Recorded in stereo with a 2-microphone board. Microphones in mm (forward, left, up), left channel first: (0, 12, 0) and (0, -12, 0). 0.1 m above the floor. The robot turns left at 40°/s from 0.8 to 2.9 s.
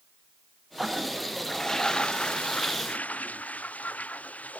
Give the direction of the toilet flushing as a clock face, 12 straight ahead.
6 o'clock.